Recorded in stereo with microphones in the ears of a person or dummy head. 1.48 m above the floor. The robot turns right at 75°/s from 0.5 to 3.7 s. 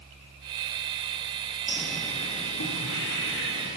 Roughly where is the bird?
Centre.